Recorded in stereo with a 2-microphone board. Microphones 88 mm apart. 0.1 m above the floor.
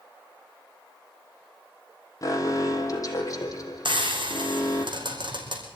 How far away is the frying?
About 4 m.